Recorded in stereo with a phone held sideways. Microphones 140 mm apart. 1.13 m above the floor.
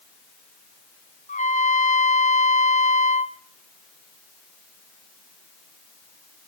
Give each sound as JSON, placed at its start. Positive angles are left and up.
{"t": 1.3, "sound": "a trumpet", "side_deg": 60, "distance_m": 0.8}